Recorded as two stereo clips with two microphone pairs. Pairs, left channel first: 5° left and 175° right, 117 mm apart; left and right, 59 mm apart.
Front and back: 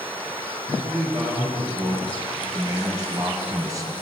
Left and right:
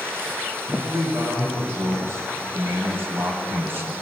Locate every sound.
0.7 s a man speaking: 130° right, 3 m; by 3.9 s 125° right, 1.4 m